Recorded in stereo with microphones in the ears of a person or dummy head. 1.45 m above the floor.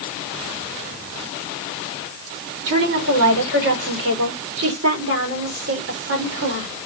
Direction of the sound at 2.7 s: 70° right (ahead or behind).